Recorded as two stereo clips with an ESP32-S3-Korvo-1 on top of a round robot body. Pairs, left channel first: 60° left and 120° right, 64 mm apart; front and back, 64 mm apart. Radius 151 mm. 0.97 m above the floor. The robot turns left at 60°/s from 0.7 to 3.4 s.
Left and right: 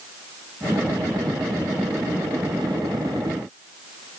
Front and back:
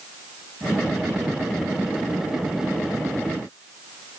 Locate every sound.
Only background noise.